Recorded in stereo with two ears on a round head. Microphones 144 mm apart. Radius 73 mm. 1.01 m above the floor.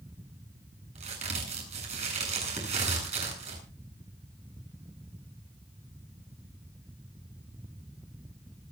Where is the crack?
45° right (ahead or behind), 9 m.